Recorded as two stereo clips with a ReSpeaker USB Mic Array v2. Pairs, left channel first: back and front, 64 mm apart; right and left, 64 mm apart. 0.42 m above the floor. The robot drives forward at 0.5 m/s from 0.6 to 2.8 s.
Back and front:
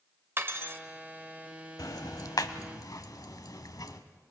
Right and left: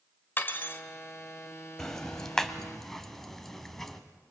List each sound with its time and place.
0.4 s cutlery clinking: 40° right, 1.1 m; by 0.8 s 45° right, 1.0 m
1.8 s ticking: 170° right, 0.8 m; by 4.0 s 175° right, 1.3 m